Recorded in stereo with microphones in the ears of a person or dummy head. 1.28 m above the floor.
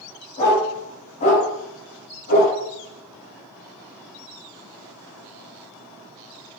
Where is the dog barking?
35° left (ahead or behind), 4.5 m; by 2.6 s 45° left (ahead or behind), 5.5 m.